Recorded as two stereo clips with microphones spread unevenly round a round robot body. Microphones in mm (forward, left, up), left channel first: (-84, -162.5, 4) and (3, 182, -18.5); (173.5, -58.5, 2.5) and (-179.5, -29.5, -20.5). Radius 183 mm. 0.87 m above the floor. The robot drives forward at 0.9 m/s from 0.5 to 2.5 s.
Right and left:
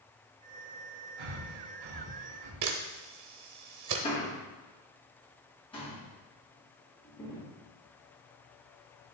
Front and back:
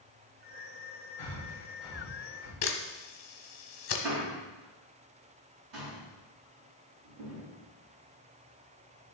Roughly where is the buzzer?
No buzzer in this recording.